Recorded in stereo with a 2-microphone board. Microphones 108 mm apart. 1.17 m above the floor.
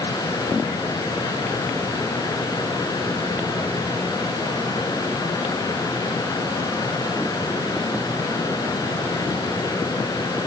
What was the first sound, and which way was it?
Only background noise.